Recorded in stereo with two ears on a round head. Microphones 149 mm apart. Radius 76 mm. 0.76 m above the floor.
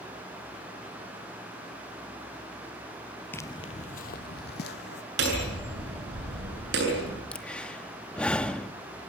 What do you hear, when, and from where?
3.3 s footsteps: 10° left (ahead or behind), 0.8 m; by 5.0 s 75° left (ahead or behind), 2.5 m
5.2 s hammering: 80° right, 8 m
7.3 s breathing: 5° left (ahead or behind), 1.1 m